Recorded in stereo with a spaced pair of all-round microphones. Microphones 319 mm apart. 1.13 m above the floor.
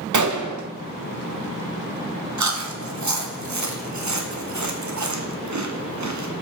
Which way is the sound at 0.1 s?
65° right (ahead or behind).